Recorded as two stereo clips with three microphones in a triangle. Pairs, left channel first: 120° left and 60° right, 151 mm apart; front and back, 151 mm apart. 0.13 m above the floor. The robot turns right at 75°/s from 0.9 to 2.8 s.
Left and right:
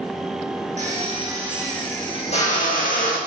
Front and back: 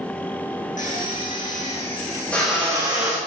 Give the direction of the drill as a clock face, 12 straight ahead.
1 o'clock.